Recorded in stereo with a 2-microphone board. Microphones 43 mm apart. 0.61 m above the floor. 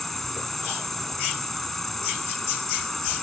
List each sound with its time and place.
0.0 s an insect: 5° left (ahead or behind)